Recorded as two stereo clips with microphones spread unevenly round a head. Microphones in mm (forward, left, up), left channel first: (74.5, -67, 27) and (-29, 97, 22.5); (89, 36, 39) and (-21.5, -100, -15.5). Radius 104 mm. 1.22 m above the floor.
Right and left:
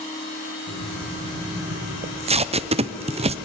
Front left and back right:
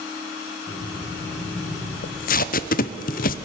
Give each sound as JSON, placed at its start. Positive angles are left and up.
{"t": 0.7, "sound": "breathing", "azimuth_deg": -25, "distance_m": 8.0}
{"t": 2.0, "sound": "tape being pulled", "azimuth_deg": 90, "distance_m": 0.5}